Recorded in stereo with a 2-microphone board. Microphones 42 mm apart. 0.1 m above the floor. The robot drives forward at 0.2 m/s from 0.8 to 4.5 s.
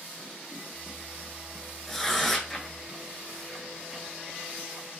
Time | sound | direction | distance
1.9 | tearing paper | 5° left (ahead or behind) | 0.5 m